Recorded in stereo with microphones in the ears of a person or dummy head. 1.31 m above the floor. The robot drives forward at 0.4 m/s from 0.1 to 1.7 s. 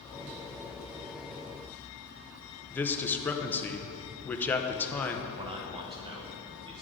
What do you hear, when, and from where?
2.7 s a man speaking: 10° left (ahead or behind), 0.6 m
5.3 s a man speaking: 20° right (ahead or behind), 0.8 m